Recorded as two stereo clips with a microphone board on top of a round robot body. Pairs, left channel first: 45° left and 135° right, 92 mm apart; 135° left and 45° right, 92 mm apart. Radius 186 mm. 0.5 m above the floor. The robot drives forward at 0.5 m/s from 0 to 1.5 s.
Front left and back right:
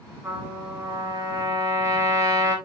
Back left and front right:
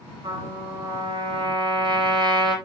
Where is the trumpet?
75° right, 4 m; by 2.5 s 85° right, 4 m.